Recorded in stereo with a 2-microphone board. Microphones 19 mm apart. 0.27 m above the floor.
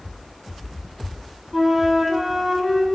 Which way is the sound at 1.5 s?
5° right (ahead or behind).